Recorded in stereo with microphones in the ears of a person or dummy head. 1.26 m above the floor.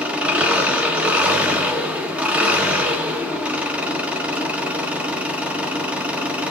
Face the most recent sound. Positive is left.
turn(degrees=-5)  # may be behind; listen again after turning